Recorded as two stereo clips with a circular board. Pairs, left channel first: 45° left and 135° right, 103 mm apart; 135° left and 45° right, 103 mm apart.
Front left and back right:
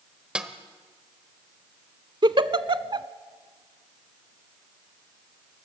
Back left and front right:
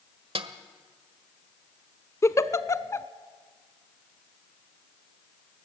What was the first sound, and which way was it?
A snare drum, 55° right.